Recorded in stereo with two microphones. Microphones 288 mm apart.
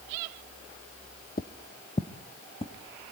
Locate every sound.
1.4 s footsteps: 30° left (ahead or behind), 1.1 m; by 2.7 s 20° left (ahead or behind), 2.5 m